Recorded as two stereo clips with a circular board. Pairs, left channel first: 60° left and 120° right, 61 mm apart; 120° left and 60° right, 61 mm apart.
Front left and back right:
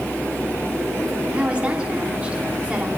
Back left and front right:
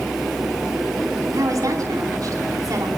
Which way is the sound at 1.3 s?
50° right.